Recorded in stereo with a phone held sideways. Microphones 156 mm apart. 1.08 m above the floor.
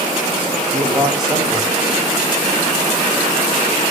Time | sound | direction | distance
0.7 | a man speaking | centre (ahead or behind) | 9 m